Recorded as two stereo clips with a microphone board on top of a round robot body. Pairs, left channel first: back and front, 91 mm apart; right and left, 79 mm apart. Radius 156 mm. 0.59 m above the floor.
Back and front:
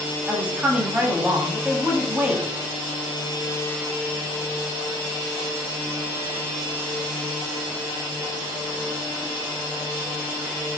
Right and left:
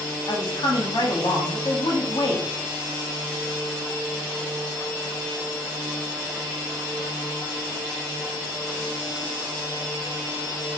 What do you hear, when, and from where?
0.3 s a woman speaking: 75° right, 1.1 m